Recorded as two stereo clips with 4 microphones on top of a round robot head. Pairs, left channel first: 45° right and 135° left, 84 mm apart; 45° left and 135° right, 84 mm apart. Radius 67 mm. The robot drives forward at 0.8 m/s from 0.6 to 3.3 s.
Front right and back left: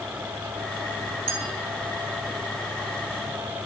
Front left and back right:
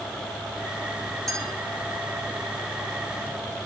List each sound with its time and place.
1.3 s a clink: 130° left, 1.6 m; by 1.5 s 135° left, 1.7 m